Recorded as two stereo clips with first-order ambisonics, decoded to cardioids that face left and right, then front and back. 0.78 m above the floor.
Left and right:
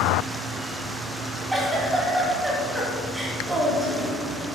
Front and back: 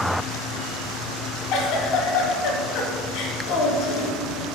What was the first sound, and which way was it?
A giggle, 10° right.